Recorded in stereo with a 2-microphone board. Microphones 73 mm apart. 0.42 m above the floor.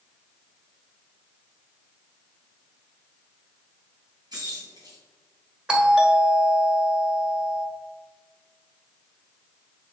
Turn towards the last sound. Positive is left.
turn(degrees=-10)  # may be behind; listen again after turning